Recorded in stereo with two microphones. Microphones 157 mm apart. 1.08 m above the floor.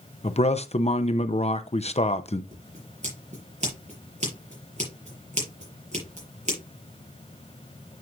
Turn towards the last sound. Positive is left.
turn(degrees=-50)  # may be behind; listen again after turning